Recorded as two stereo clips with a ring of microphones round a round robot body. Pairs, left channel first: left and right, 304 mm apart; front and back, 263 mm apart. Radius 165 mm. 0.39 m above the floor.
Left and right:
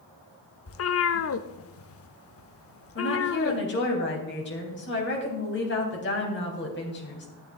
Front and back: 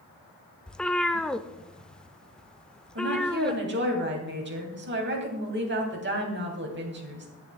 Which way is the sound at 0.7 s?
85° left.